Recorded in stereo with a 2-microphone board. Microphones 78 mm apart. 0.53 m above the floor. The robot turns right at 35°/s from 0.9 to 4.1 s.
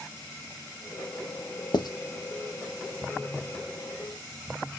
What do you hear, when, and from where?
1.7 s writing: 65° left (ahead or behind), 0.5 m; by 1.9 s 60° left (ahead or behind), 0.5 m